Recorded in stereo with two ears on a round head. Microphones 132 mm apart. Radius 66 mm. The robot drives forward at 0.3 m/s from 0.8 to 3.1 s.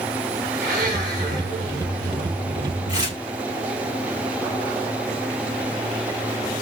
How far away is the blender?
About 8 m.